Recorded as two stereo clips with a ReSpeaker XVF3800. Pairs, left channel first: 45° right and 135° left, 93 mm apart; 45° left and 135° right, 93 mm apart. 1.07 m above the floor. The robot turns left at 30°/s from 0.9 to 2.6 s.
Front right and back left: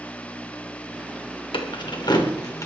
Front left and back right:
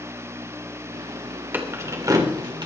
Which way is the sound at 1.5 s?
65° right.